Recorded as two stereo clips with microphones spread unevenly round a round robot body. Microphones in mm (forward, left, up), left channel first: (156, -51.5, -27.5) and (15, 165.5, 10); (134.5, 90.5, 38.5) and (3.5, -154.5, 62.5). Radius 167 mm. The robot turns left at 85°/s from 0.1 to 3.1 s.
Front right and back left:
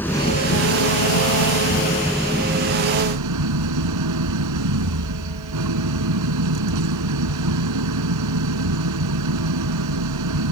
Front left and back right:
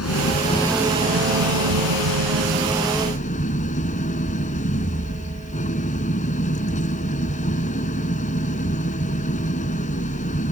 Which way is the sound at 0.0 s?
25° left.